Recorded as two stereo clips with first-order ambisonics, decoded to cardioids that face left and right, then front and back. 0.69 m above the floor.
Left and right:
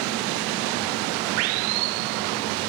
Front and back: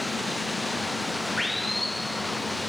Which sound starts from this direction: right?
Running water, at 0.0 s.